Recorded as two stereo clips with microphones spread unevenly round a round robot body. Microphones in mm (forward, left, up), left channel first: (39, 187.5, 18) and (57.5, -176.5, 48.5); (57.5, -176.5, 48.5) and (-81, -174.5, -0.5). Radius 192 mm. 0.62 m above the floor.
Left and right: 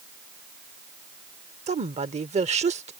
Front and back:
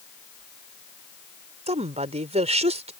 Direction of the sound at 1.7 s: 160° right.